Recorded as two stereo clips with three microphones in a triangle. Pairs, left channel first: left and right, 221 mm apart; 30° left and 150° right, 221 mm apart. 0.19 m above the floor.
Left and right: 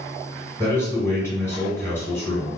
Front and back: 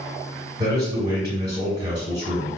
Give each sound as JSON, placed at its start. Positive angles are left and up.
{"t": 0.6, "sound": "a man speaking", "azimuth_deg": 160, "distance_m": 1.6}